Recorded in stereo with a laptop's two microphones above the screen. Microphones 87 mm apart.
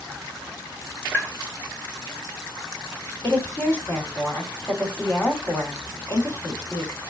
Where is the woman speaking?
25° left (ahead or behind), 2 m.